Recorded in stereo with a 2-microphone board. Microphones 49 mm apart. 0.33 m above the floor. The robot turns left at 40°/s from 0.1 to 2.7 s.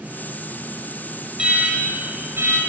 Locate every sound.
1.4 s an alarm: 15° right, 5 m; by 2.6 s 65° right, 5 m